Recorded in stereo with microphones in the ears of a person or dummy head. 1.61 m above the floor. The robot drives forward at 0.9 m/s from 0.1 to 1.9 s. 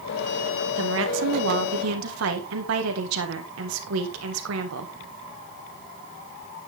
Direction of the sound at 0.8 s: 75° right (ahead or behind).